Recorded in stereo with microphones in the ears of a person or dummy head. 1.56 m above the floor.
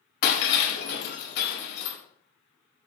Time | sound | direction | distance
0.2 | breaking glass | 75° left (ahead or behind) | 4.5 m